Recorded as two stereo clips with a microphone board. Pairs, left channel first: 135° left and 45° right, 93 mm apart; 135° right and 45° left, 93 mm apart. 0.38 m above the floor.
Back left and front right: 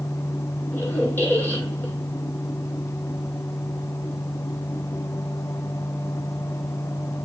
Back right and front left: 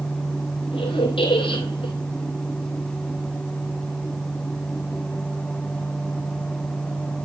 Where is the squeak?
155° right, 2 m.